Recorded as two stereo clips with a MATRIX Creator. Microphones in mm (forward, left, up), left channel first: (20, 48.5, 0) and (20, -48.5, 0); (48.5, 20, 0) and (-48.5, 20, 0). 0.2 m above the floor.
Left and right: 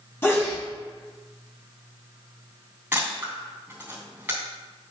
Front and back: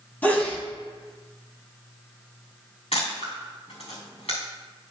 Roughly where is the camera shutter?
Ahead.